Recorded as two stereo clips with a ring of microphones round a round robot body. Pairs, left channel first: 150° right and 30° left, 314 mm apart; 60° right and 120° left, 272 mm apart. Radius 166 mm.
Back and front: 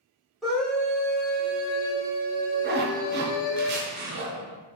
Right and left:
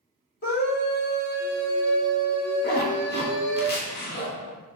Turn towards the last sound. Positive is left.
turn(degrees=-15)